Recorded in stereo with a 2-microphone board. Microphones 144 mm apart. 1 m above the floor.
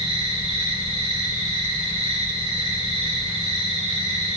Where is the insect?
45° right (ahead or behind), 5 m.